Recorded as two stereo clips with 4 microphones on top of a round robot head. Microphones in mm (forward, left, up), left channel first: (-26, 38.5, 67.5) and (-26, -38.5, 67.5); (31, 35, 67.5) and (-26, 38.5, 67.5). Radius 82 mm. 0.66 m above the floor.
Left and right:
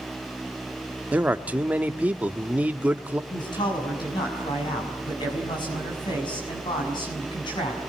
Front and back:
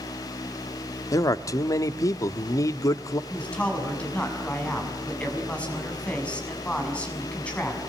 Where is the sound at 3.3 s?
65° left, 7 m.